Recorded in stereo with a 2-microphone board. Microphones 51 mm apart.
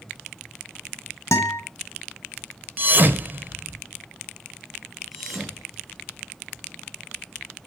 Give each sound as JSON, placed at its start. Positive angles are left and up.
{"t": 1.3, "sound": "a guitar", "side_deg": 65, "distance_m": 3.0}
{"t": 2.8, "sound": "a thud", "side_deg": -35, "distance_m": 1.6}
{"t": 5.1, "sound": "a thud", "side_deg": -5, "distance_m": 6.0}